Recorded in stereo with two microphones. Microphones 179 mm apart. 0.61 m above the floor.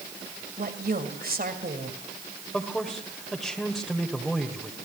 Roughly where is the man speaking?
Centre.